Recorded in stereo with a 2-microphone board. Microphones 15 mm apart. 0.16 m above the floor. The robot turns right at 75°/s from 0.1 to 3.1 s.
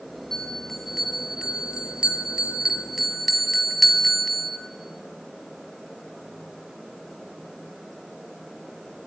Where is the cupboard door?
I don't hear a cupboard door.